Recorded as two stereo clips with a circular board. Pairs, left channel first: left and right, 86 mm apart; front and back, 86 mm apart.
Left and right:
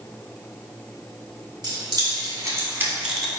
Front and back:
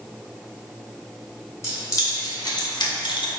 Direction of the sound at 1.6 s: 55° right.